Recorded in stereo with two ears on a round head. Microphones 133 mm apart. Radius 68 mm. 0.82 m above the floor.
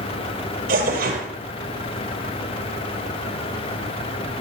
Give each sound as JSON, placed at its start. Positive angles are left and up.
{"t": 0.7, "sound": "tearing paper", "side_deg": -75, "distance_m": 4.0}